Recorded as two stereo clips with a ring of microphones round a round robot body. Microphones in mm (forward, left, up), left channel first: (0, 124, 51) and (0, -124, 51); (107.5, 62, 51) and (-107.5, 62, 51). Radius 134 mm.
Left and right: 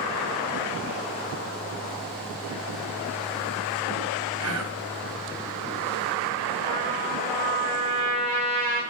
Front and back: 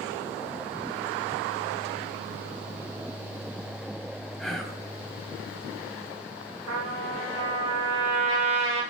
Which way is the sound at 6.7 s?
145° right.